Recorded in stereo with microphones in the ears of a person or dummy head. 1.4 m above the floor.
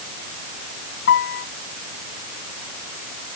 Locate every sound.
1.1 s a piano: 65° left (ahead or behind)